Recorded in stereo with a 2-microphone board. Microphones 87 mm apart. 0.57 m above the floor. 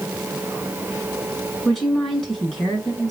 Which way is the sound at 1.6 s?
5° left (ahead or behind).